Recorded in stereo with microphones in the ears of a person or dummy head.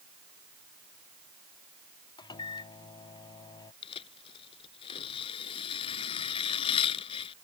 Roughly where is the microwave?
Left.